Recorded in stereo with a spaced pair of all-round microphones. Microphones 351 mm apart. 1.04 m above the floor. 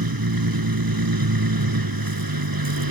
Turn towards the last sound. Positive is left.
turn(degrees=-80)